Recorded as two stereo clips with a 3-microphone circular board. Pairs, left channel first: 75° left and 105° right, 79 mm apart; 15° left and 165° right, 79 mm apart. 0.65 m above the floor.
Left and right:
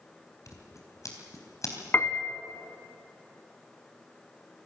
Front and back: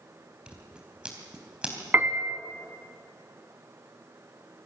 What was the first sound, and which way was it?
Scissors, 120° left.